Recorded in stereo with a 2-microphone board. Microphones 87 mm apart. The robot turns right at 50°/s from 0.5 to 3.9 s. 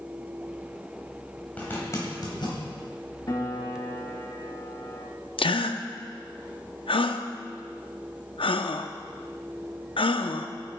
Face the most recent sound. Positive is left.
turn(degrees=80)